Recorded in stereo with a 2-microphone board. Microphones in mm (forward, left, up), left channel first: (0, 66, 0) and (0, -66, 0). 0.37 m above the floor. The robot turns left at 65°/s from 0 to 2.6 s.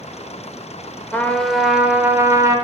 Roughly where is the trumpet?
Centre.